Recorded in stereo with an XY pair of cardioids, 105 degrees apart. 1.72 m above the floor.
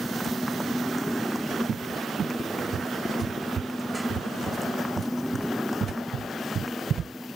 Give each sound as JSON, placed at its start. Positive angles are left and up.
{"t": 0.0, "sound": "a motorcycle", "azimuth_deg": 0}
{"t": 1.7, "sound": "a cupboard door", "azimuth_deg": -50}